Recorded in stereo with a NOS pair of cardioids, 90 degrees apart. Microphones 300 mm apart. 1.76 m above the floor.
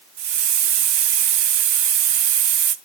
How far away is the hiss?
About 0.8 m.